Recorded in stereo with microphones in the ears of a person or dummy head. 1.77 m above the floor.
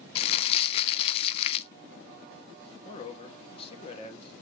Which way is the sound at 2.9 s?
40° left (ahead or behind).